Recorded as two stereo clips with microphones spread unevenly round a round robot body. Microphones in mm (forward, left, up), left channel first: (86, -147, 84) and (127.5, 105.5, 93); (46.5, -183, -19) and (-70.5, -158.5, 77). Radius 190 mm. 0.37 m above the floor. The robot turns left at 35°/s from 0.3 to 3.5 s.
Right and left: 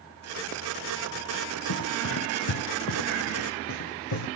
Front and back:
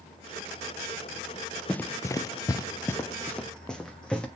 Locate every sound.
1.7 s running footsteps: 120° right, 0.6 m; by 4.3 s 100° right, 2.0 m